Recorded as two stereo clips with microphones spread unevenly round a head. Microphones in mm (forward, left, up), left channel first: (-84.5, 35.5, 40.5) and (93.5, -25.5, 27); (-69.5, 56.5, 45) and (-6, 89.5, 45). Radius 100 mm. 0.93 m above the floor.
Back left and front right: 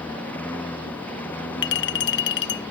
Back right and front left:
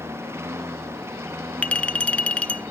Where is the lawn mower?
80° left.